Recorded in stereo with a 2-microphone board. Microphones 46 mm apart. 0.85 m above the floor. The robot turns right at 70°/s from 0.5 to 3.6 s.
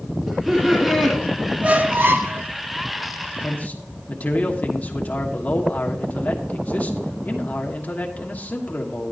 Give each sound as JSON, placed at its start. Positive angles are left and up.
{"t": 0.3, "sound": "laughter", "azimuth_deg": 0, "distance_m": 2.0}
{"t": 1.6, "sound": "a squeak", "azimuth_deg": -145, "distance_m": 0.7}
{"t": 3.4, "sound": "a man speaking", "side_deg": 20, "distance_m": 1.4}